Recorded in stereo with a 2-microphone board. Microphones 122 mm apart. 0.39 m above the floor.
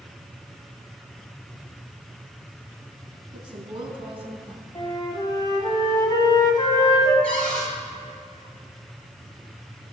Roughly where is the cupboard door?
Centre.